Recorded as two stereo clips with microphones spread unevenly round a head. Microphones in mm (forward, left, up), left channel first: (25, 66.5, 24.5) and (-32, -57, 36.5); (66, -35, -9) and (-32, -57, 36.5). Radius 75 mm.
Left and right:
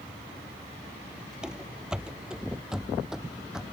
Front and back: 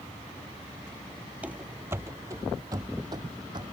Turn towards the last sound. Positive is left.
turn(degrees=165)